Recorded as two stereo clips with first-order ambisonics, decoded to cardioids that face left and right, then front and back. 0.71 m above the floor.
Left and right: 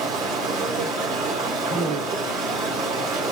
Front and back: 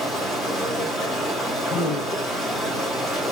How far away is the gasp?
About 2 m.